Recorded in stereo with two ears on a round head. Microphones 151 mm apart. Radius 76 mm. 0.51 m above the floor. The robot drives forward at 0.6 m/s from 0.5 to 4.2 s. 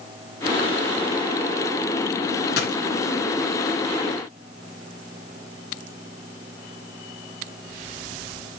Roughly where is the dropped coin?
Left.